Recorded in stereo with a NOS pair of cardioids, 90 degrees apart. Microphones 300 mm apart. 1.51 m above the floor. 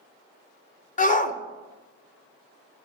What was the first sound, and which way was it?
A shout, 25° left.